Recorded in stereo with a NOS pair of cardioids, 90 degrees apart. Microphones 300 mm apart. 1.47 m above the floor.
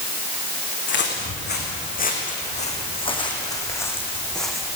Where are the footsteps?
35° left, 7 m; by 4.7 s straight ahead, 6 m.